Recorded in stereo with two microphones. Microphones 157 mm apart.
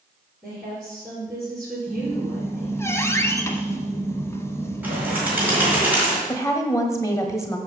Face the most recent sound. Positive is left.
turn(degrees=20)  # may be behind; listen again after turning